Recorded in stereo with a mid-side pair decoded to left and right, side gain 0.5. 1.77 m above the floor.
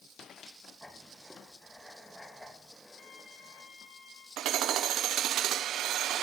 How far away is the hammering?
About 1.1 m.